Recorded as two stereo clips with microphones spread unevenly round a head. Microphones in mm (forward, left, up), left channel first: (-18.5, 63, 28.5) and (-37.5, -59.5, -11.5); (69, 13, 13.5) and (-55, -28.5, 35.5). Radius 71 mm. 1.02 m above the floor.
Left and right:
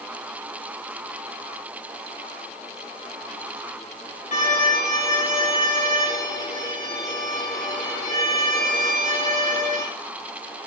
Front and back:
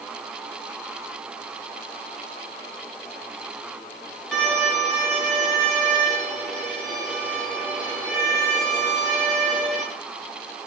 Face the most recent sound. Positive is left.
turn(degrees=110)